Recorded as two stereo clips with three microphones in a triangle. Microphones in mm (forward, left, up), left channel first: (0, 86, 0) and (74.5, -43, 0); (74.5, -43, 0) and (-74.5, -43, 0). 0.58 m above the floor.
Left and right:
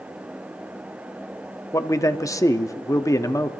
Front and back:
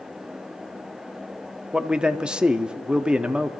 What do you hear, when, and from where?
1.7 s a man speaking: 105° left, 0.7 m